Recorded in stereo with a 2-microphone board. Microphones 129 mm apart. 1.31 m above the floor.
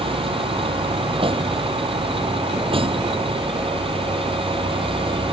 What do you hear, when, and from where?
0.0 s a vehicle: 45° right (ahead or behind)